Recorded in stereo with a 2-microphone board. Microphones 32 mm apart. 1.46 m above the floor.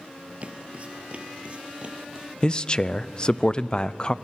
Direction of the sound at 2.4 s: 25° left (ahead or behind).